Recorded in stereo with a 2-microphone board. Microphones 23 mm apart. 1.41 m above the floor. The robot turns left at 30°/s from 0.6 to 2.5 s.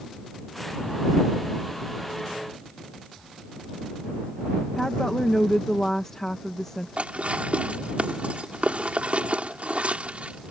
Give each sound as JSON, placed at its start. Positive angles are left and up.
{"t": 4.8, "sound": "a woman speaking", "side_deg": 20}
{"t": 7.0, "sound": "dishes clattering", "side_deg": -65}